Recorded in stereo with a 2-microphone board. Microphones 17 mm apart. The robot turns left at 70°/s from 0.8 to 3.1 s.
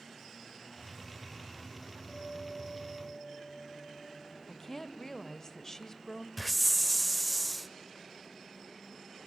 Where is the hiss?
Centre (ahead or behind), 0.8 m.